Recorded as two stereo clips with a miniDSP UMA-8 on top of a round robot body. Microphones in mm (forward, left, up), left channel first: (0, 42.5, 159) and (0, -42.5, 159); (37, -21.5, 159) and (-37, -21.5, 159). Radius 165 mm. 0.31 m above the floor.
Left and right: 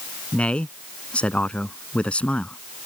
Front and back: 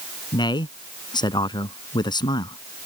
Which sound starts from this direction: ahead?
A man speaking, at 0.3 s.